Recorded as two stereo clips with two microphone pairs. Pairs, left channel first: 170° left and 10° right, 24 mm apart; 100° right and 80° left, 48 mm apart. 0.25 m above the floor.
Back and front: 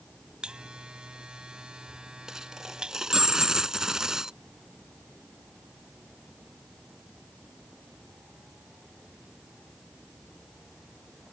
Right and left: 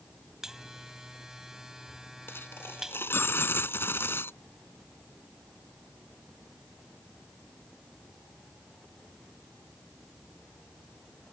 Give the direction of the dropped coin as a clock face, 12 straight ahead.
2 o'clock.